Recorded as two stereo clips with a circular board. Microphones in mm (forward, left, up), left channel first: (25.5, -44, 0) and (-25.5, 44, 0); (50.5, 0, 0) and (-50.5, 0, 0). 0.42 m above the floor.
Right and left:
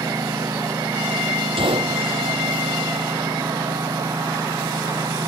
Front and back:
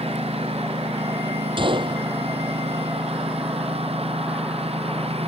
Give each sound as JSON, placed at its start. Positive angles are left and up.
{"t": 0.0, "sound": "a lawn mower", "azimuth_deg": 175}
{"t": 1.6, "sound": "a gunshot", "azimuth_deg": 150}